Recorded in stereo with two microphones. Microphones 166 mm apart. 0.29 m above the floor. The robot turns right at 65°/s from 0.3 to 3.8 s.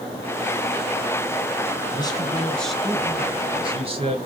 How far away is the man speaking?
About 1.4 m.